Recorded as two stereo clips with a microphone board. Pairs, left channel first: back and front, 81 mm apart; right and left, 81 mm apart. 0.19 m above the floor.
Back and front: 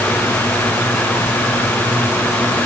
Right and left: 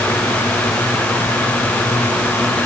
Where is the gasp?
I don't hear a gasp.